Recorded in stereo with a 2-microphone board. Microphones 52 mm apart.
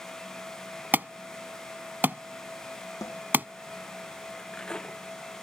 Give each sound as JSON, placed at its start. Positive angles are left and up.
{"t": 0.9, "sound": "an alarm", "side_deg": -35}
{"t": 3.0, "sound": "a snare drum", "side_deg": 80}
{"t": 4.3, "sound": "cutlery clinking", "side_deg": 15}